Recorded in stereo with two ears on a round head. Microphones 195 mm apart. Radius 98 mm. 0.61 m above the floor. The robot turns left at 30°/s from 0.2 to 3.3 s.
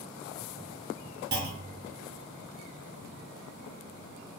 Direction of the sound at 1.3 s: 45° right (ahead or behind).